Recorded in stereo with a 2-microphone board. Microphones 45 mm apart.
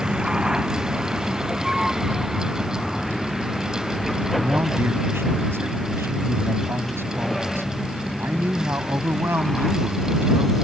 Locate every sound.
0.0 s a vehicle: 20° right (ahead or behind); by 10.7 s 5° left (ahead or behind)
4.4 s a man speaking: 65° right (ahead or behind)